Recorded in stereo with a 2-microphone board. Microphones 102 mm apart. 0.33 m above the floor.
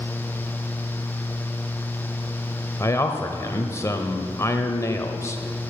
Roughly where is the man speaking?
Left.